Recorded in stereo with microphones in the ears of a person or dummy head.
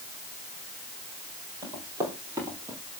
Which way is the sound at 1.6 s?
20° right (ahead or behind).